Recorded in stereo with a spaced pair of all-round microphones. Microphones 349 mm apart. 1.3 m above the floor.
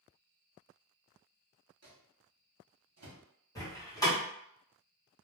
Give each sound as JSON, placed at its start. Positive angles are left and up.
{"t": 1.8, "sound": "a microwave", "side_deg": -50, "distance_m": 0.7}
{"t": 3.5, "sound": "a door slam", "side_deg": 10, "distance_m": 1.0}